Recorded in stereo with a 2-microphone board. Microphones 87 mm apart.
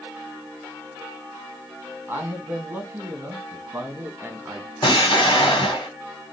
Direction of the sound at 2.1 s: 20° right (ahead or behind).